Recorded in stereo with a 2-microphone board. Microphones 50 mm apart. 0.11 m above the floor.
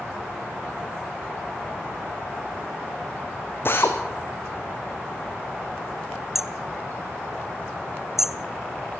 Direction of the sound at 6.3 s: 5° right (ahead or behind).